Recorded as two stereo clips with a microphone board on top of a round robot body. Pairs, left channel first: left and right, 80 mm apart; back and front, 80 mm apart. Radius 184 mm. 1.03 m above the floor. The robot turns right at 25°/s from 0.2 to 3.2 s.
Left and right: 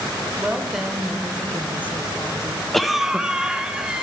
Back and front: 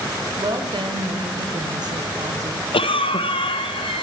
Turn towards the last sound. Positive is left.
turn(degrees=-170)